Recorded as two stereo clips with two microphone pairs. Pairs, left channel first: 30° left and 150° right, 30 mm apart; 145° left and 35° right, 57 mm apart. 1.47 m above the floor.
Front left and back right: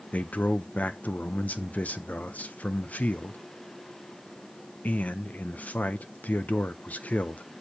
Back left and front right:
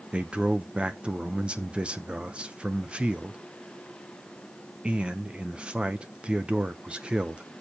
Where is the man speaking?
35° left, 0.7 m.